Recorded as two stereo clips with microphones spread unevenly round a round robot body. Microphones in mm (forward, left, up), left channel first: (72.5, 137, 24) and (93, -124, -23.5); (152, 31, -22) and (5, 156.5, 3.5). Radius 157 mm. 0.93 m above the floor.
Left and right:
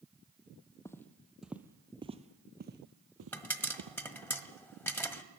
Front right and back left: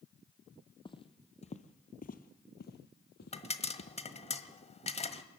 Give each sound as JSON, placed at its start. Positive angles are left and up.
{"t": 0.8, "sound": "footsteps", "azimuth_deg": 25, "distance_m": 1.5}
{"t": 3.3, "sound": "a pop", "azimuth_deg": 15, "distance_m": 1.6}